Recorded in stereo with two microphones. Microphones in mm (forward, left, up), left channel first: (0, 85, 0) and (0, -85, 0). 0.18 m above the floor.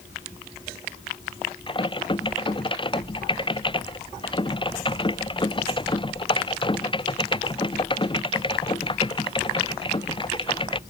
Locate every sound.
1.7 s typing on a keyboard: 30° left (ahead or behind)